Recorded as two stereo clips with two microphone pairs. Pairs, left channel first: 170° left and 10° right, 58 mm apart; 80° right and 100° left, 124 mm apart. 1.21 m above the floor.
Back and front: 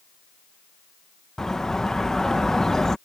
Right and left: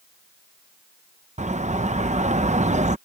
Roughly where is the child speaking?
No child speaking in this recording.